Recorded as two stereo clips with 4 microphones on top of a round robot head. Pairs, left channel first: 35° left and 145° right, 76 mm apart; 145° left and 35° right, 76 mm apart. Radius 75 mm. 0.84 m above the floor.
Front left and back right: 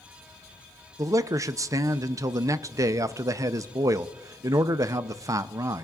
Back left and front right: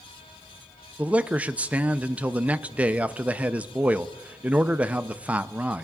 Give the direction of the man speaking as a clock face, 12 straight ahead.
4 o'clock.